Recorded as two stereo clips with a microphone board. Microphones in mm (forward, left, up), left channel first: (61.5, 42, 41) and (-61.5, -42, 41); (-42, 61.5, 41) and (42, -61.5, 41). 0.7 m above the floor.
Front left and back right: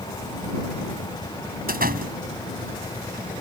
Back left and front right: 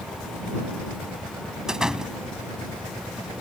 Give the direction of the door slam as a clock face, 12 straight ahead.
5 o'clock.